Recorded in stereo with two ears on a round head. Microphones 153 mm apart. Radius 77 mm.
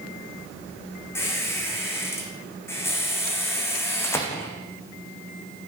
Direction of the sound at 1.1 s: 15° left (ahead or behind).